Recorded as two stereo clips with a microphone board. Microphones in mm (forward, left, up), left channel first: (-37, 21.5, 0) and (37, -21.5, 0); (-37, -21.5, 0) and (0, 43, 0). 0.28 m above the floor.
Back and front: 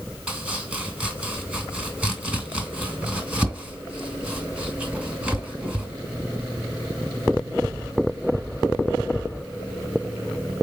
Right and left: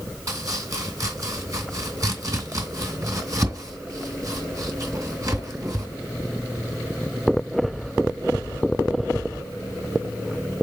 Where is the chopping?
45° left, 1.8 m.